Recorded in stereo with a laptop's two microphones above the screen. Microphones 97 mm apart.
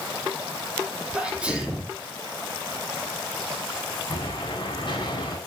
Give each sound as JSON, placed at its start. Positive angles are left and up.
{"t": 1.1, "sound": "a sneeze", "side_deg": -10, "distance_m": 2.5}
{"t": 4.1, "sound": "an explosion", "side_deg": 55, "distance_m": 4.0}